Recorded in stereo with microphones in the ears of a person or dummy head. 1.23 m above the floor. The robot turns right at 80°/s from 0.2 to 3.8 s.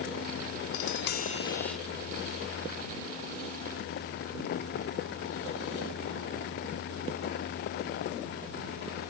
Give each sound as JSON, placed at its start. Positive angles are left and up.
{"t": 0.7, "sound": "tapping", "azimuth_deg": 100}